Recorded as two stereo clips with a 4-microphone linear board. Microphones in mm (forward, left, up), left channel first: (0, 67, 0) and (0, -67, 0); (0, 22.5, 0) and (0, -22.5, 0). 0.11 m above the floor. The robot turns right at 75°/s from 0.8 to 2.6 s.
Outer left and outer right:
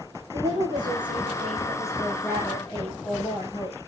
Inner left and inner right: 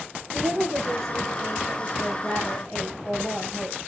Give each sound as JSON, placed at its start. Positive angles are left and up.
{"t": 0.3, "sound": "a woman speaking", "azimuth_deg": -100, "distance_m": 8.0}